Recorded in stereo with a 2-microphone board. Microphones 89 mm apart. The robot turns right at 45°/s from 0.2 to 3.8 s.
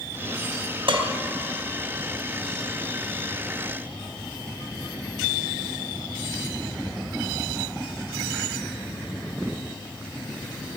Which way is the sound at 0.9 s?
80° right.